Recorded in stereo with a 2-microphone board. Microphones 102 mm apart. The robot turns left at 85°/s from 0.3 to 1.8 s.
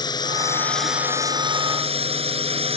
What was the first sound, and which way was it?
A drone, 45° left.